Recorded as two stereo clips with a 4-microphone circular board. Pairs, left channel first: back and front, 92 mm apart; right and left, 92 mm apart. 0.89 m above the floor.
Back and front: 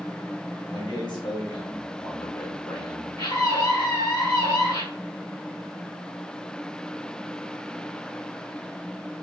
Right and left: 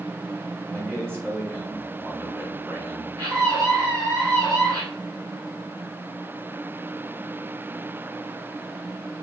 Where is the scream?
125° left, 4.5 m.